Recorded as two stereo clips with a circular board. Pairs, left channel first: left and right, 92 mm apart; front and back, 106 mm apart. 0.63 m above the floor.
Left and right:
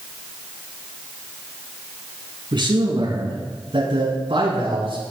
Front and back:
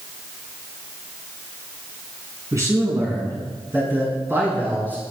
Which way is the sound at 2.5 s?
120° right.